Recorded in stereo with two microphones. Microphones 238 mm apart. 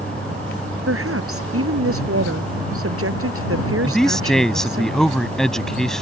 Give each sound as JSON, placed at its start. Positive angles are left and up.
{"t": 0.9, "sound": "a woman speaking", "side_deg": -75}
{"t": 3.8, "sound": "a man speaking", "side_deg": 0}